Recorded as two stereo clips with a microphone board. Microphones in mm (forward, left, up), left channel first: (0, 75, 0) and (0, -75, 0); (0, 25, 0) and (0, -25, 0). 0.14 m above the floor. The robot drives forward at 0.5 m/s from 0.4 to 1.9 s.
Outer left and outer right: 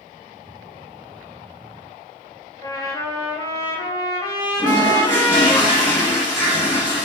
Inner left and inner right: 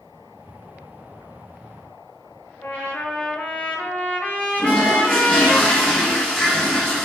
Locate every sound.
2.6 s a trumpet: 25° left (ahead or behind), 0.7 m
4.6 s a toilet flushing: 20° left (ahead or behind), 1.3 m